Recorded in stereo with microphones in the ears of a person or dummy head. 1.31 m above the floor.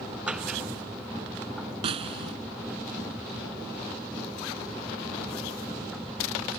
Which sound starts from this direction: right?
A snare drum, at 1.8 s.